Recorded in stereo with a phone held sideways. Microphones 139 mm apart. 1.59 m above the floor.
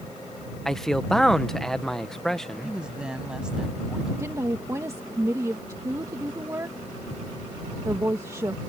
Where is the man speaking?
5° left (ahead or behind).